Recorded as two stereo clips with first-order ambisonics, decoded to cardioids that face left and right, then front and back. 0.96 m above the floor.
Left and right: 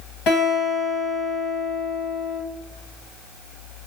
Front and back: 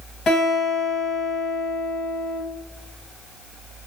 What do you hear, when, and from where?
0.3 s a guitar: 60° left, 1.4 m